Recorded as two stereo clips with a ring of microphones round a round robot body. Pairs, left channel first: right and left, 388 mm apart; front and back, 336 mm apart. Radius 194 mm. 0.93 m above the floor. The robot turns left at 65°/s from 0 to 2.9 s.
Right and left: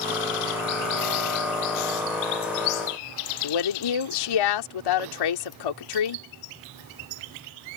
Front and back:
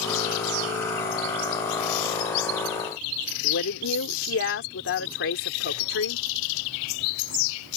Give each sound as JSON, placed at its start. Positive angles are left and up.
{"t": 3.4, "sound": "a woman speaking", "azimuth_deg": -60}